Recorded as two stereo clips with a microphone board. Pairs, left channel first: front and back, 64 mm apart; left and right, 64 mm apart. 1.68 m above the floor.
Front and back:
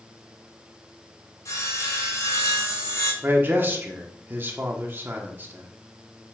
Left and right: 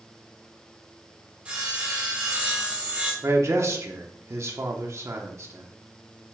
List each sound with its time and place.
1.4 s sawing: 20° right, 2.5 m
3.2 s a man speaking: 130° right, 1.2 m